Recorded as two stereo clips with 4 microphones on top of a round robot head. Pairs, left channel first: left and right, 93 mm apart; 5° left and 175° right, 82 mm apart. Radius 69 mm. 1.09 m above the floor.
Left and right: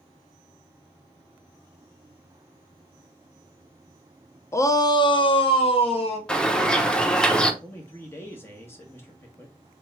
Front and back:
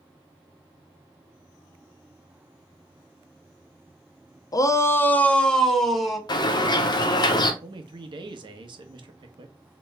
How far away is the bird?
About 0.8 m.